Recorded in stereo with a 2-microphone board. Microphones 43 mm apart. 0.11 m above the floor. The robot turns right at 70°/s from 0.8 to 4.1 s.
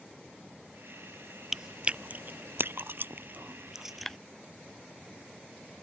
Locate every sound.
1.5 s chewing: 5° right (ahead or behind); by 4.2 s 5° left (ahead or behind)